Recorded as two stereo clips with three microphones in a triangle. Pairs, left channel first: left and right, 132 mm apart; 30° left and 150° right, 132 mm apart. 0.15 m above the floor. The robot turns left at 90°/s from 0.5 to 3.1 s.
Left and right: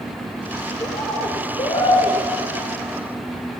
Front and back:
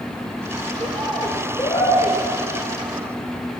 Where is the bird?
155° left, 3 m; by 2.2 s 25° left, 3 m.